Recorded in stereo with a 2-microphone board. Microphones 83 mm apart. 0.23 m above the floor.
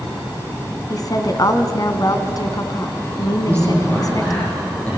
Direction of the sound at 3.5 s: 20° left (ahead or behind).